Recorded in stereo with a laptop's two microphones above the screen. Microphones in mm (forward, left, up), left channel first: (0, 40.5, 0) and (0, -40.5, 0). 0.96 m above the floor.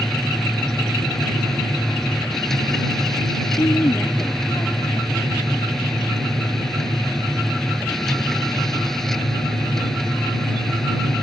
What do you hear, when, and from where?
0.0 s a machine running: 5° left (ahead or behind)
3.6 s a woman speaking: 50° left (ahead or behind)